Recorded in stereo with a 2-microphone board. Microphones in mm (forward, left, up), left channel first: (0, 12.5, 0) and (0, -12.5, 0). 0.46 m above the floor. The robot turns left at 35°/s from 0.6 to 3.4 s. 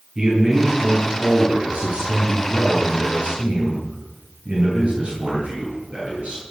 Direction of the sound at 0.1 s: 30° right.